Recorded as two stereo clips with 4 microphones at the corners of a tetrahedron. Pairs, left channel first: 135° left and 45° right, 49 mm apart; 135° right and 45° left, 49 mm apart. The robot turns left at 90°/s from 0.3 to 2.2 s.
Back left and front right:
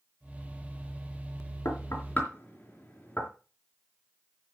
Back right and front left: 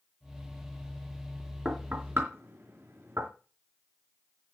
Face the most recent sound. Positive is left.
turn(degrees=80)